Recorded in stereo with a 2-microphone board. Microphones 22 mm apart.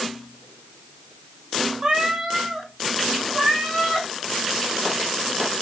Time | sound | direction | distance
1.8 | a cat meowing | 20° right (ahead or behind) | 2 m